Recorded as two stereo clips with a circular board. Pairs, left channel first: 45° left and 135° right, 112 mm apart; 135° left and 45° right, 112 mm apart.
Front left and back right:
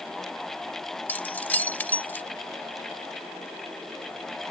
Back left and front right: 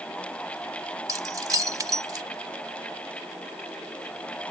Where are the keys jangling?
20° right.